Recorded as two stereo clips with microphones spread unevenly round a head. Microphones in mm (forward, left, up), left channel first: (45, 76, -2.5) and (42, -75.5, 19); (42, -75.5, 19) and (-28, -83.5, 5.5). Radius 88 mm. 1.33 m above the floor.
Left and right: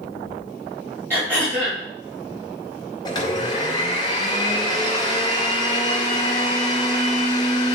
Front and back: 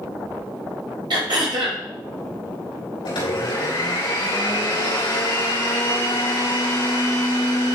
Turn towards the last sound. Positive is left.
turn(degrees=25)